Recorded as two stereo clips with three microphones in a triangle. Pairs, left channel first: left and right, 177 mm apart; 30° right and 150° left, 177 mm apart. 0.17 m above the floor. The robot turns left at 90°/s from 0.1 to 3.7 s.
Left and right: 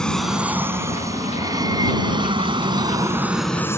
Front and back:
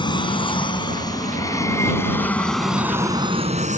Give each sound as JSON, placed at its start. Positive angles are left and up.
{"t": 0.0, "sound": "an aircraft", "azimuth_deg": 10}